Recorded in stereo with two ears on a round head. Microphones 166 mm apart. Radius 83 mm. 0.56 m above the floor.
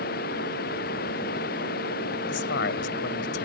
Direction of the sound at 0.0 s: 55° left (ahead or behind).